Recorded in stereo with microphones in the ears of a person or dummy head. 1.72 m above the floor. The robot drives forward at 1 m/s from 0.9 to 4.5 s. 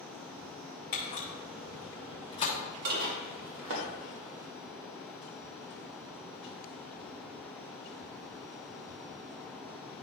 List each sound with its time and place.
0.9 s a camera shutter: 50° left (ahead or behind), 2.5 m; by 2.5 s 35° left (ahead or behind), 3.5 m
2.9 s dishes clattering: 50° right (ahead or behind), 1.5 m; by 3.9 s 60° right (ahead or behind), 1.4 m